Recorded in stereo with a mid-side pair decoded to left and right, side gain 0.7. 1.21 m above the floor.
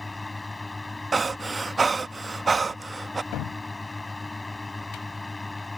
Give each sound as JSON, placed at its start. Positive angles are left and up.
{"t": 0.0, "sound": "a fan", "azimuth_deg": 15}
{"t": 1.1, "sound": "breathing", "azimuth_deg": -20}
{"t": 3.3, "sound": "a cupboard door", "azimuth_deg": 60}